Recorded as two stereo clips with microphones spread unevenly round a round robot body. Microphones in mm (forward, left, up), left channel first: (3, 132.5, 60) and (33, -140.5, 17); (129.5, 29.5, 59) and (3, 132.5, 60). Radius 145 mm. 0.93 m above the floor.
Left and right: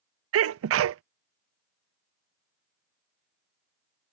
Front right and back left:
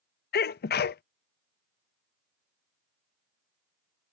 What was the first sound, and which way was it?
A sneeze, 50° right.